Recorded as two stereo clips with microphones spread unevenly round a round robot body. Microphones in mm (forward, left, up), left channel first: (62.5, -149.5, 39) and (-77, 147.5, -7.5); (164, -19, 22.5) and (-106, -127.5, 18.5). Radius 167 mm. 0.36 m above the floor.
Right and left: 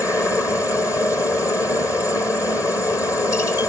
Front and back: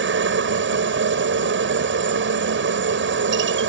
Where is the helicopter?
150° right.